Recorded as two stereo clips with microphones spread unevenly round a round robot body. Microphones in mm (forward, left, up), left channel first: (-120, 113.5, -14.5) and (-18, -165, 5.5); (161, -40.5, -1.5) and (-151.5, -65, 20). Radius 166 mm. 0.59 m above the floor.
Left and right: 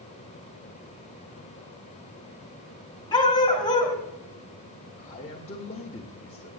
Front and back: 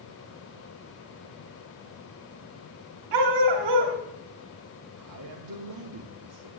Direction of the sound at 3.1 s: 175° right.